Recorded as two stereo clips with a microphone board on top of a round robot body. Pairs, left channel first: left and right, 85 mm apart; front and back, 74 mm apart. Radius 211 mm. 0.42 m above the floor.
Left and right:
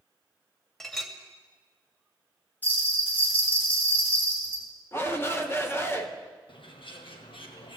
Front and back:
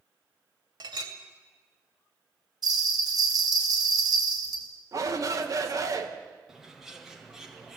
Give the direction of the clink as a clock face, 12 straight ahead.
6 o'clock.